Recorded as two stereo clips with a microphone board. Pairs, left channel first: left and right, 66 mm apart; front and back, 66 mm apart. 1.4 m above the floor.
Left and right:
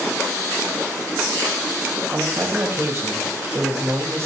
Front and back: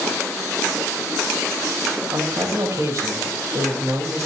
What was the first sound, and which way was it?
A man speaking, 140° right.